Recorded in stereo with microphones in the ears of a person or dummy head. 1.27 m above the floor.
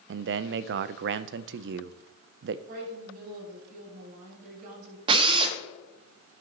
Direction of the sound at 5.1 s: 30° right (ahead or behind).